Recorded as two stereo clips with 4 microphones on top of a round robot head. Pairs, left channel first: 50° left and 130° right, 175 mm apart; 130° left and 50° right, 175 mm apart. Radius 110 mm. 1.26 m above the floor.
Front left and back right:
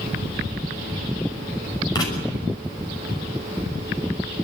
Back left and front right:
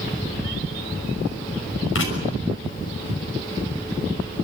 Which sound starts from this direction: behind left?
Writing, at 1.9 s.